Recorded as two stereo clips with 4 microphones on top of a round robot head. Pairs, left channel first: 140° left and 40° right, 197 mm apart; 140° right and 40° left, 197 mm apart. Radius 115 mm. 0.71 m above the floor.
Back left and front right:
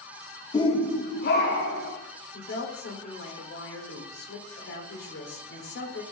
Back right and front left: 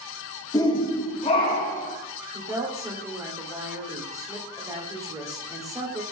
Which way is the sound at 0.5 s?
175° left.